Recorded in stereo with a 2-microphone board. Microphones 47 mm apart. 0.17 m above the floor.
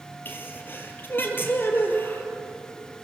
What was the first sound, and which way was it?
A sneeze, 50° left (ahead or behind).